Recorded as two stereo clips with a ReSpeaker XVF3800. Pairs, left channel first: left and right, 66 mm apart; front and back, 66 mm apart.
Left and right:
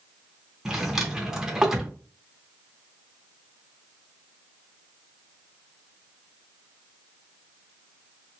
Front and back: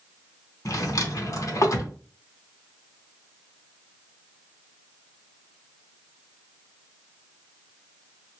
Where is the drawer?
10° right, 0.8 m.